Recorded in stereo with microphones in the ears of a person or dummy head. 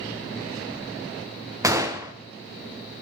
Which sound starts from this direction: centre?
A gunshot, at 1.6 s.